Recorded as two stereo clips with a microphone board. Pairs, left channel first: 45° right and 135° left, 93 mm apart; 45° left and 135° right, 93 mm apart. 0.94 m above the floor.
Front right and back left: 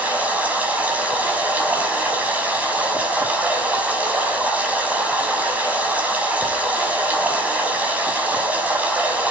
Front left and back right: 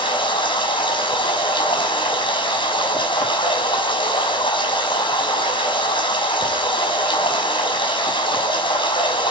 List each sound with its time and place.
0.0 s running water: 60° left, 6 m